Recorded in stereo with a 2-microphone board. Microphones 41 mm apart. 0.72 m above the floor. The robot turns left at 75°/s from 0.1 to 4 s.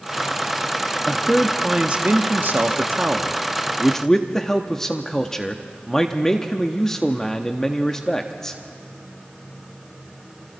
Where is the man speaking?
25° left, 1.0 m; by 8.6 s 165° left, 1.0 m.